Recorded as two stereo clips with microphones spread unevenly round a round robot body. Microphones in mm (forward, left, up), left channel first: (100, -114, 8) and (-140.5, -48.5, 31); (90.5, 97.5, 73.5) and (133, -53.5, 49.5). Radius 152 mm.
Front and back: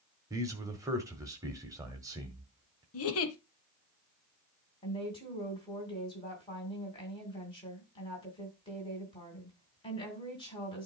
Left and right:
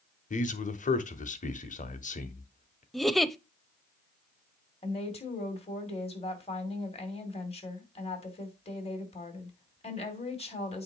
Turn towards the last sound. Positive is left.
turn(degrees=55)